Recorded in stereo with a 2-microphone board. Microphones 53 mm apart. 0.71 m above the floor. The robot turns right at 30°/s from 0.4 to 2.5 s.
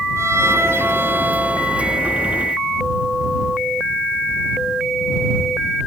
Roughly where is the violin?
Ahead right.